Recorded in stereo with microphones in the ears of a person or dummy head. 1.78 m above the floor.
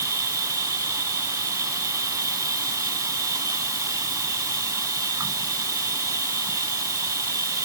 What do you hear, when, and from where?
0.0 s an insect: 15° right (ahead or behind)